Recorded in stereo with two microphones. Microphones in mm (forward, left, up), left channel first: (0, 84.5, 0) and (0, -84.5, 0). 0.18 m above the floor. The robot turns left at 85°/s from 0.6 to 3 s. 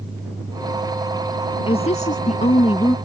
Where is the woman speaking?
135° left; by 3.0 s 25° left.